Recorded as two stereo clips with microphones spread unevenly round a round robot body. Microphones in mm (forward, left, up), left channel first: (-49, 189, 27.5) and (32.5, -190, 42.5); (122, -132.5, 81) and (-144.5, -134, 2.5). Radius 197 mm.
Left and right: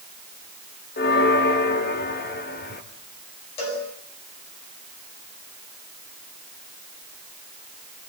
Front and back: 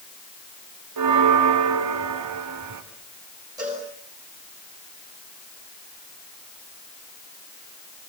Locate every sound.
1.0 s a bell: 170° left, 2 m
3.6 s a cowbell: 100° left, 9.5 m